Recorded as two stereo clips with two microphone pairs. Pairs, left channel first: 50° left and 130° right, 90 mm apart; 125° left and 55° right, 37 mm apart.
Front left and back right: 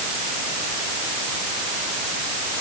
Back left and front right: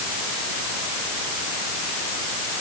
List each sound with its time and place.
Only background noise.